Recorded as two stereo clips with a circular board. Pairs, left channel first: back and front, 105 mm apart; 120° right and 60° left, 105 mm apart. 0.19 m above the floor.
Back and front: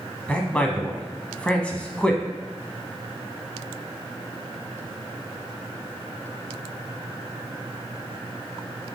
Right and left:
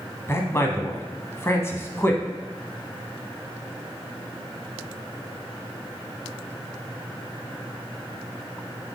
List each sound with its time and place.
0.3 s a man speaking: 115° right, 1.1 m